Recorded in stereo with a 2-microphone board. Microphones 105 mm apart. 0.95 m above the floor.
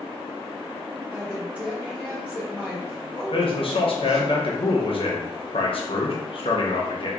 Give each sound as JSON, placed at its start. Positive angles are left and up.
{"t": 1.1, "sound": "a woman speaking", "side_deg": -15, "distance_m": 1.8}
{"t": 3.3, "sound": "a man speaking", "side_deg": 60, "distance_m": 0.8}